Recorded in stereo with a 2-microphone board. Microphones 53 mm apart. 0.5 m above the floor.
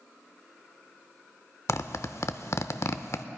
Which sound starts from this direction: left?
A zipper, at 1.7 s.